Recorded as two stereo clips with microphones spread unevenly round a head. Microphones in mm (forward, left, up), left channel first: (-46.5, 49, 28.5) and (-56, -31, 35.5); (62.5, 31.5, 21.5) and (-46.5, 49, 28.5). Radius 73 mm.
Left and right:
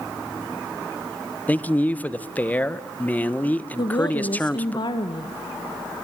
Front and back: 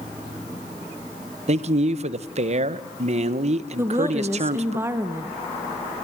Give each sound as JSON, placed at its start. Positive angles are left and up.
{"t": 1.5, "sound": "a man speaking", "azimuth_deg": 150, "distance_m": 1.2}
{"t": 3.8, "sound": "a woman speaking", "azimuth_deg": 100, "distance_m": 1.7}